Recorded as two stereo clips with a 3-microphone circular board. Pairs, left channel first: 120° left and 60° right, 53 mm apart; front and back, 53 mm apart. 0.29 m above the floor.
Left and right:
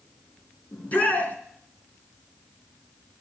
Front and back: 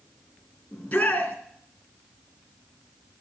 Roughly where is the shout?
Ahead left.